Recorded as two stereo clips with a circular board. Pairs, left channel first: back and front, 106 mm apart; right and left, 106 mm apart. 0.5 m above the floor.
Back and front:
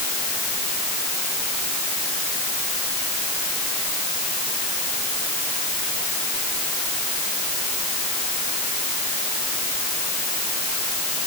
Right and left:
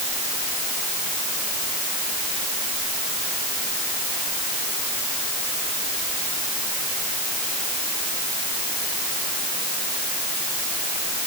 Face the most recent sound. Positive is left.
No sound to turn to.